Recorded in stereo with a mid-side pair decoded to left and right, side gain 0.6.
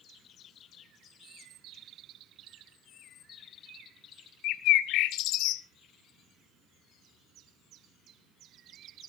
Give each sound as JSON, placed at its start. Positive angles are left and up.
{"t": 4.4, "sound": "a bird", "azimuth_deg": 70, "distance_m": 0.9}